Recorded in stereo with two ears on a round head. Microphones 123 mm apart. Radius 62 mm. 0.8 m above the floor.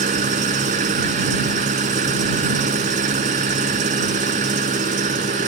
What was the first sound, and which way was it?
An engine running, 60° right (ahead or behind).